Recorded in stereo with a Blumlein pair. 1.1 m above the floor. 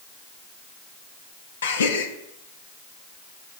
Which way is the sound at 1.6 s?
65° left.